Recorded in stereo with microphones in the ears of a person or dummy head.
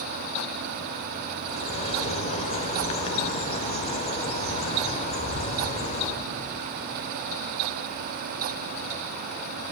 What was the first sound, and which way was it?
A bird, 40° left (ahead or behind).